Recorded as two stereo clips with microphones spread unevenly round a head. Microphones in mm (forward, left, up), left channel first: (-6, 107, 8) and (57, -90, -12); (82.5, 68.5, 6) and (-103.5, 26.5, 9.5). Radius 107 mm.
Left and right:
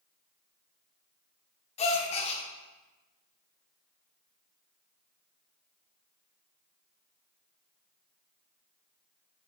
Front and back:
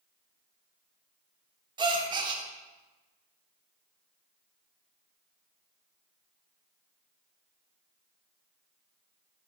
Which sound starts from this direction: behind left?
A gasp, at 1.8 s.